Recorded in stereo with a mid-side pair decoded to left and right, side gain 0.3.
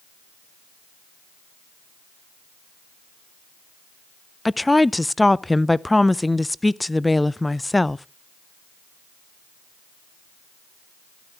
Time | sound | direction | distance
4.5 | a woman speaking | 15° left | 0.5 m